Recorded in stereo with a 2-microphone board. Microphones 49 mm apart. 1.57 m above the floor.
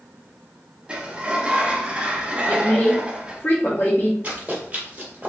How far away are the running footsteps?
About 1.8 m.